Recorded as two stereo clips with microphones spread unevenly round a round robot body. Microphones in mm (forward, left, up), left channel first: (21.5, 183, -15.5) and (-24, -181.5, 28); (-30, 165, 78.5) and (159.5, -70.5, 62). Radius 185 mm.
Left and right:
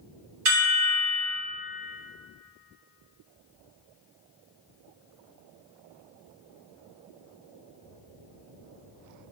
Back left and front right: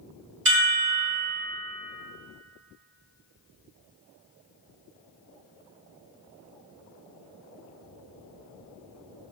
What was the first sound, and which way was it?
A chime, 95° right.